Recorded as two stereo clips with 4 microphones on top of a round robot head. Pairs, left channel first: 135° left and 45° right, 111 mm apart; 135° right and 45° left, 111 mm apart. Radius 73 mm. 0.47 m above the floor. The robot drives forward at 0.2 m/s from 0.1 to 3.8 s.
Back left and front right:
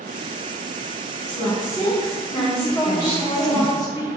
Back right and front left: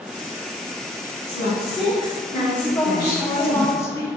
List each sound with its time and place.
1.3 s a woman speaking: 175° left, 1.6 m; by 3.6 s straight behind, 2.0 m
2.6 s a woman speaking: 160° left, 0.7 m; by 4.1 s 170° left, 0.8 m